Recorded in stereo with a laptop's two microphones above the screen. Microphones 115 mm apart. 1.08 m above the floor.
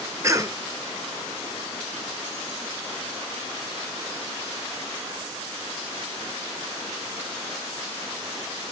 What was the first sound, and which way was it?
A cough, 25° right (ahead or behind).